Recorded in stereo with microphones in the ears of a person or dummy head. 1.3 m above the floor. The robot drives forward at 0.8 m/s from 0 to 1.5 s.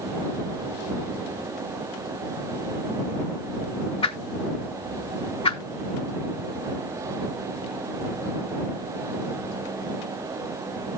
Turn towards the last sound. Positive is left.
turn(degrees=25)  # may be behind; listen again after turning